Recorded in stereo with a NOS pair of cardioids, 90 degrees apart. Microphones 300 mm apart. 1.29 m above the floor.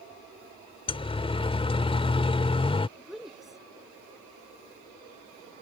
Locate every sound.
0.9 s a siren: 20° left
3.0 s a woman speaking: straight ahead